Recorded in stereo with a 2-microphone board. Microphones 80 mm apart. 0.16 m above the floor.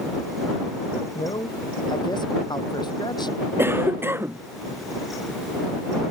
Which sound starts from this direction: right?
A cough, at 3.6 s.